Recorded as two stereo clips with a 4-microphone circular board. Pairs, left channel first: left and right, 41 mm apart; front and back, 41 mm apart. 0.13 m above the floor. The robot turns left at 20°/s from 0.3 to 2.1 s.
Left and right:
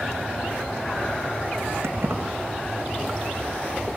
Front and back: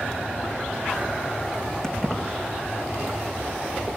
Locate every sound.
1.8 s keys jangling: 75° right, 4.5 m; by 2.2 s 80° right, 4.5 m